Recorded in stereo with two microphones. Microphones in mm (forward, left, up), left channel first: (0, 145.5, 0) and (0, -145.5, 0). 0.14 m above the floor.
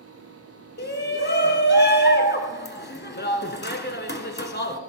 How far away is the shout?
About 1.4 m.